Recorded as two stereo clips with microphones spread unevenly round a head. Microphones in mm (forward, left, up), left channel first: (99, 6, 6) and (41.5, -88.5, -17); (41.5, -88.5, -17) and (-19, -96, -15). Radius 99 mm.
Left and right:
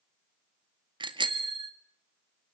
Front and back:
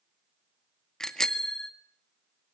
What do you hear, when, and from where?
1.0 s a bicycle bell: 75° right, 2 m